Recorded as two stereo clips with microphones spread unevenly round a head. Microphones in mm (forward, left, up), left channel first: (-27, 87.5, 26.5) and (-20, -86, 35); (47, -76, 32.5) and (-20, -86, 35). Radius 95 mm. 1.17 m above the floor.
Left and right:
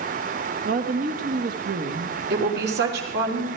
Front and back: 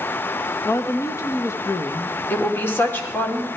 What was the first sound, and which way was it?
A woman speaking, 40° right.